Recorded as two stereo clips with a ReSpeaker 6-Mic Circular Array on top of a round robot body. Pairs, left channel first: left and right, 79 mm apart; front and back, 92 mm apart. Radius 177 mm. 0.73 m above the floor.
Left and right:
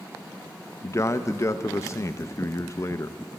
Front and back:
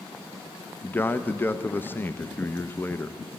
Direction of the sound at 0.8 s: 60° left.